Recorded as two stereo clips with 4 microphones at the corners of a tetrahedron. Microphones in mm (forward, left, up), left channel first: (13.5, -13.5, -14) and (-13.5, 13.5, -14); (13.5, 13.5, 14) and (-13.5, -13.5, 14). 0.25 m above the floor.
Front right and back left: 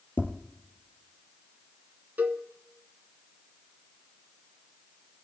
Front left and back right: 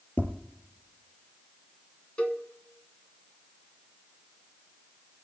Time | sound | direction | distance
0.2 | tapping | straight ahead | 3.5 m
2.2 | a cowbell | 100° left | 1.3 m